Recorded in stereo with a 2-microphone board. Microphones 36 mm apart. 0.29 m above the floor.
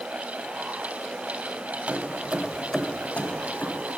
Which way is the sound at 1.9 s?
45° right (ahead or behind).